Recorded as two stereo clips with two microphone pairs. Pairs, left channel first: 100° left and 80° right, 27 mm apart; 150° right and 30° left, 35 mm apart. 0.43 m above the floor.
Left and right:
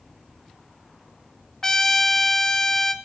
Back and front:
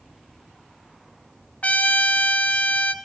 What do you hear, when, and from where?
1.6 s a trumpet: 170° left, 0.8 m